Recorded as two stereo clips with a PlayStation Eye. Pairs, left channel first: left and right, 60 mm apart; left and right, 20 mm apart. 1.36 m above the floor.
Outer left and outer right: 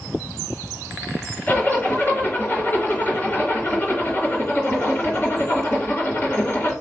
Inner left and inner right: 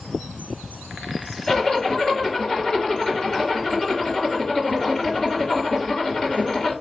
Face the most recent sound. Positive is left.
turn(degrees=35)  # may be behind; listen again after turning